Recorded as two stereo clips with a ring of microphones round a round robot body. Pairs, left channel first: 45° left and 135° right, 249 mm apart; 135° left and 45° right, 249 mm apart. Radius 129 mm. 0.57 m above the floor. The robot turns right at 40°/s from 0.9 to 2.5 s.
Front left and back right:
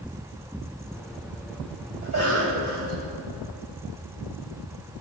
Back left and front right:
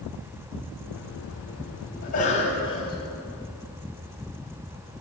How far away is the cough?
About 3.5 m.